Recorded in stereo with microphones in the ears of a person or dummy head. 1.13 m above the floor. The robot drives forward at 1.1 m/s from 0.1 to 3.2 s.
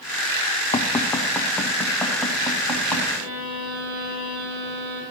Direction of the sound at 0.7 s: 20° left (ahead or behind).